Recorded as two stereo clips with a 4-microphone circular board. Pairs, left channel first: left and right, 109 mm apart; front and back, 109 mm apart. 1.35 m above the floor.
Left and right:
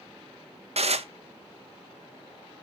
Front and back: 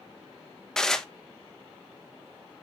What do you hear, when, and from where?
0.8 s dishes clattering: 85° right, 0.8 m